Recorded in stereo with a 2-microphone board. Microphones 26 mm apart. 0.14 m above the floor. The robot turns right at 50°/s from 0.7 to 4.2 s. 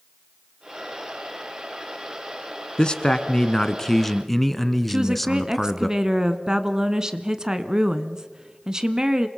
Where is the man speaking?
95° left, 1.2 m; by 5.9 s 170° left, 1.2 m.